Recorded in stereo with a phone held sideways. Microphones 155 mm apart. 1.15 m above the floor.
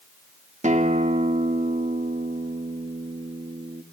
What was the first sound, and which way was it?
A guitar, 50° right (ahead or behind).